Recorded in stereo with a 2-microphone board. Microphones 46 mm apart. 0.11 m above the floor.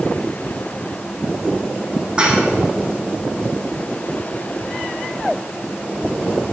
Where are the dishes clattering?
25° right (ahead or behind), 3.5 m.